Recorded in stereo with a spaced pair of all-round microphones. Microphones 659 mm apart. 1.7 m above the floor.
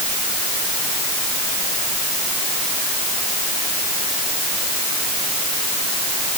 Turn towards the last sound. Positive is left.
No sound to turn to.